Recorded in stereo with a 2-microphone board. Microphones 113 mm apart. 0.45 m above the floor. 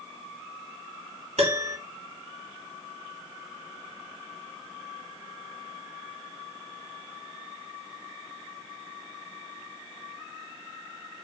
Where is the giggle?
I don't hear a giggle.